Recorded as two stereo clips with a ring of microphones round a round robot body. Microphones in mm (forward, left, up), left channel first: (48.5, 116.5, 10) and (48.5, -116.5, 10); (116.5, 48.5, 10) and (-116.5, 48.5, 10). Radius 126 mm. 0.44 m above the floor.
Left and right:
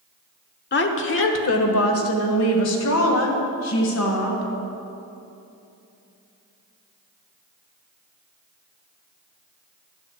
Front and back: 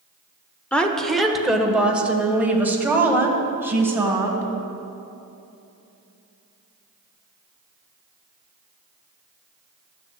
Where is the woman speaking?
80° left, 1.0 m; by 4.5 s 100° left, 3 m.